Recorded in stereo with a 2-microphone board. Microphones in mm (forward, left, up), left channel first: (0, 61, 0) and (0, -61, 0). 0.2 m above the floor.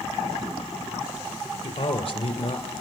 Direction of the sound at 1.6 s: 60° left (ahead or behind).